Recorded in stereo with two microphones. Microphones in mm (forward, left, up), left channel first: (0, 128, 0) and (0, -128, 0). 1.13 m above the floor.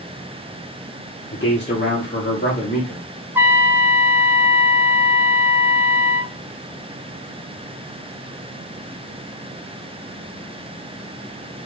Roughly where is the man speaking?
Left.